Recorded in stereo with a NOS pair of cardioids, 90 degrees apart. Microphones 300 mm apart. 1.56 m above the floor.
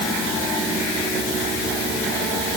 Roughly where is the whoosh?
I don't hear a whoosh.